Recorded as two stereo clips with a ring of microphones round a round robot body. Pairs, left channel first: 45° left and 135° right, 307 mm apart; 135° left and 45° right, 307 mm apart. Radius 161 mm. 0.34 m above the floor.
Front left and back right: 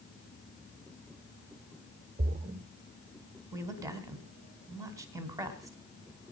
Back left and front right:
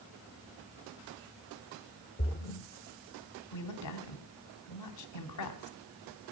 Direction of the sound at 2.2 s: 175° left.